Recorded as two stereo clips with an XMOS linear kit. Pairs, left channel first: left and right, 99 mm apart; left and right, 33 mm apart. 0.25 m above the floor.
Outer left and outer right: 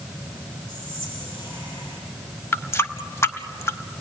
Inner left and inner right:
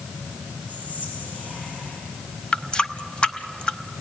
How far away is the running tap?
About 0.8 m.